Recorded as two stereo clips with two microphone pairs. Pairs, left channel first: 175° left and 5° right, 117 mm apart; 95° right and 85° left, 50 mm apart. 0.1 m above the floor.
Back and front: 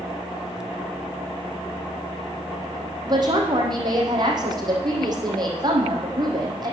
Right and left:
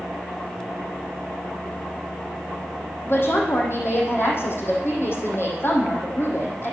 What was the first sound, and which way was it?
A woman speaking, 60° right.